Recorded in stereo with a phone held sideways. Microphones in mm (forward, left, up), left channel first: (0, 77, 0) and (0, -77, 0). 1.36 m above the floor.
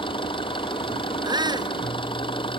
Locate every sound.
0.0 s an engine running: 35° left (ahead or behind)
1.2 s a shout: 30° right (ahead or behind)